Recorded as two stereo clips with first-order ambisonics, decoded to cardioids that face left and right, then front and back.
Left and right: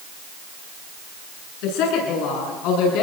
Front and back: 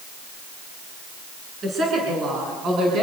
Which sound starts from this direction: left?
A woman speaking, at 1.6 s.